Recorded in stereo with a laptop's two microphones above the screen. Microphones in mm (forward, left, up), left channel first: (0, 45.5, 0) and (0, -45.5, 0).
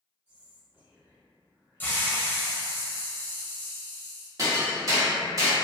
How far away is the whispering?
About 1.0 m.